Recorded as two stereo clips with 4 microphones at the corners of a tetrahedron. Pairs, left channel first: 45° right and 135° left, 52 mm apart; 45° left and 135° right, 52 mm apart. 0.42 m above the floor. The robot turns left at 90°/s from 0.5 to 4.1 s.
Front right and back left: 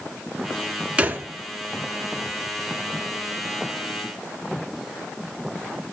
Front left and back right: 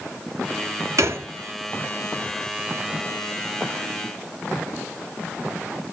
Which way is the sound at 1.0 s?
155° right.